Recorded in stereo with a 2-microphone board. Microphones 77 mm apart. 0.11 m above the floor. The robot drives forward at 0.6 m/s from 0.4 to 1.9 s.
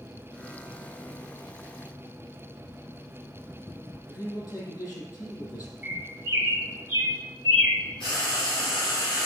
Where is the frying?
75° left (ahead or behind), 3.5 m.